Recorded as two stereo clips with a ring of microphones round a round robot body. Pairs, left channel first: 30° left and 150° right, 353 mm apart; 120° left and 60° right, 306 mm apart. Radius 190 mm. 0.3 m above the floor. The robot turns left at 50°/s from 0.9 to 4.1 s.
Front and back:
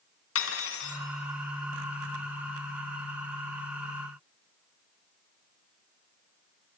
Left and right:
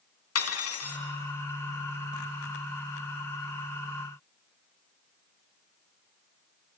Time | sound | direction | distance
0.3 | cutlery clinking | 80° left | 2.5 m